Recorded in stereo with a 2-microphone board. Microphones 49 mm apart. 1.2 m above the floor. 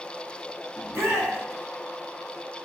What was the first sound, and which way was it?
A shout, 75° right (ahead or behind).